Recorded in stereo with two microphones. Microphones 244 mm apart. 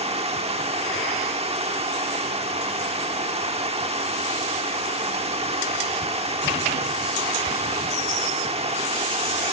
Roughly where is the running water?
Right.